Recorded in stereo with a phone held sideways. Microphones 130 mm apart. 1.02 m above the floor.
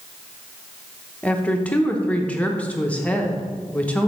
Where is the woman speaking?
10° left (ahead or behind), 0.9 m.